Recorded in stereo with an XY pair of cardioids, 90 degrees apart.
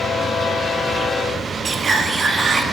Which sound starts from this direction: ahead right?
Whispering, at 1.6 s.